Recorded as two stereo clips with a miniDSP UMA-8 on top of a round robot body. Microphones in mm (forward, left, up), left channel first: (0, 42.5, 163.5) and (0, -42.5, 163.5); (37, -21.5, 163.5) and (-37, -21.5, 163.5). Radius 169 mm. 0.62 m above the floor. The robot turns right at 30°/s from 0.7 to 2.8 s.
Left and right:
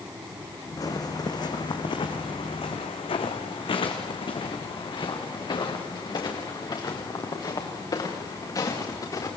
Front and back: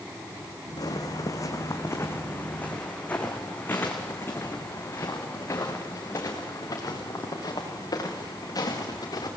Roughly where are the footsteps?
Ahead left.